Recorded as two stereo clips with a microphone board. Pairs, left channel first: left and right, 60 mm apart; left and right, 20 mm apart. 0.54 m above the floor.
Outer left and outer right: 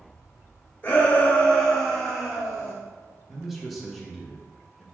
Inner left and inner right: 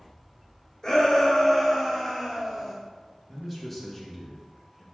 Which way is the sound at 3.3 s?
Centre (ahead or behind).